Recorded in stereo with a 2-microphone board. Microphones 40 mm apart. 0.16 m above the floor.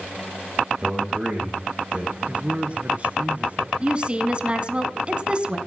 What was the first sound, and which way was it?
A man speaking, 25° right (ahead or behind).